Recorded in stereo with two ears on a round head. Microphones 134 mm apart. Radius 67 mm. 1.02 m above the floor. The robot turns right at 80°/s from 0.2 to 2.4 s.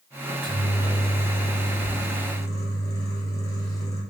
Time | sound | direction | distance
0.2 | a microwave | 20° right | 0.8 m